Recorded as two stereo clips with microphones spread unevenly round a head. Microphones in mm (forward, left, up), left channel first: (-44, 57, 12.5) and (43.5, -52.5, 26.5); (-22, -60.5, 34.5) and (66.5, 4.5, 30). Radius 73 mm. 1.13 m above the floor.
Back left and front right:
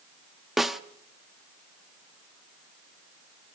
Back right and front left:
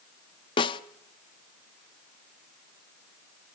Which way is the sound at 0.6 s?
130° right.